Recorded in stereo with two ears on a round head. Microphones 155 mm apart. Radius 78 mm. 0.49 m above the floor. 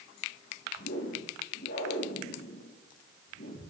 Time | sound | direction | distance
0.8 | a whoosh | 60° left (ahead or behind) | 7 m